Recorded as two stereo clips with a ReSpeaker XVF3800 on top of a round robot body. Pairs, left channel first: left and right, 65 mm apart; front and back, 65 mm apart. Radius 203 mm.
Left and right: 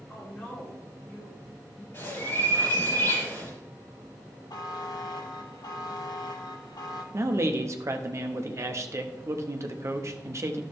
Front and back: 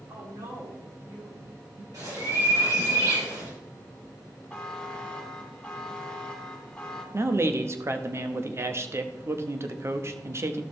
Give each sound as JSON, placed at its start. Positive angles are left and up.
{"t": 0.1, "sound": "a woman speaking", "azimuth_deg": 165, "distance_m": 3.5}
{"t": 1.9, "sound": "a bird", "azimuth_deg": 145, "distance_m": 4.5}
{"t": 4.5, "sound": "a buzzer", "azimuth_deg": 80, "distance_m": 1.1}
{"t": 7.1, "sound": "a man speaking", "azimuth_deg": -130, "distance_m": 1.1}